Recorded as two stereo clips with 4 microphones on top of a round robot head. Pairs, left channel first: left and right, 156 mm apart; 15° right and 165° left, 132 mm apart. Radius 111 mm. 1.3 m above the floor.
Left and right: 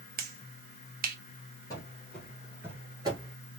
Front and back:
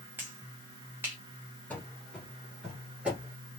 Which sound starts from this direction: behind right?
A finger snap, at 0.2 s.